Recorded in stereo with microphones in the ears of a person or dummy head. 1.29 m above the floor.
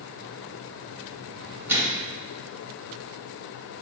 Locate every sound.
1.7 s a microwave: 5° right (ahead or behind), 1.5 m